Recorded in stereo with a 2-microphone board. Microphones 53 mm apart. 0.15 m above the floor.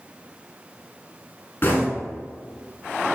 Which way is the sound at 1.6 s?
45° left (ahead or behind).